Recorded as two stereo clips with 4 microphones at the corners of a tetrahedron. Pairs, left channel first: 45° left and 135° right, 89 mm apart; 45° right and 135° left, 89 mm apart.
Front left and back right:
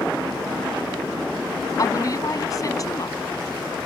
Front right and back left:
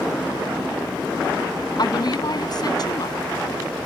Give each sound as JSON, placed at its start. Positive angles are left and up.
{"t": 1.8, "sound": "a woman speaking", "azimuth_deg": -5}